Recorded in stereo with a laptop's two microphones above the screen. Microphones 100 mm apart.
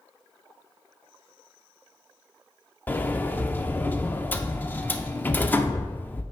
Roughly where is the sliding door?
Centre.